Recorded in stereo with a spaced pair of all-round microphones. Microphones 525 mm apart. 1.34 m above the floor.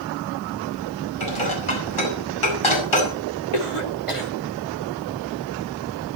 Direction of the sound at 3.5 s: 70° left (ahead or behind).